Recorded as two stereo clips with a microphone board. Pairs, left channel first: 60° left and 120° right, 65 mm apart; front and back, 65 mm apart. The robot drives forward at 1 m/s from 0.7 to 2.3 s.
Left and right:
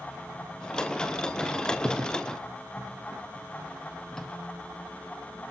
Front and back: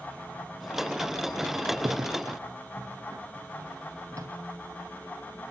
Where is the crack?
135° left, 2.5 m; by 4.3 s 145° left, 3 m.